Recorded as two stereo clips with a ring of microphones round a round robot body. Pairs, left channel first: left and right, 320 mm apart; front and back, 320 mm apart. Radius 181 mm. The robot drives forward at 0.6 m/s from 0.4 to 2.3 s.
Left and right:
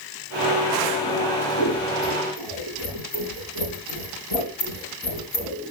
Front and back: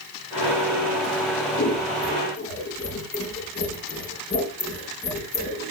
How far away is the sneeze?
I don't hear a sneeze.